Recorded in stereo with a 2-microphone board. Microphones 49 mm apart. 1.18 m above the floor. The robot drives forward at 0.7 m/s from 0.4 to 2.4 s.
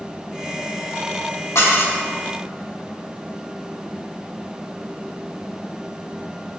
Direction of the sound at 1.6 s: 85° left.